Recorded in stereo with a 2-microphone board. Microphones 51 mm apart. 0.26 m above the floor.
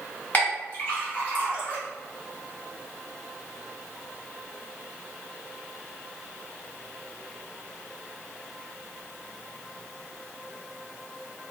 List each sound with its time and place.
0.3 s a clink: 30° left (ahead or behind), 1.8 m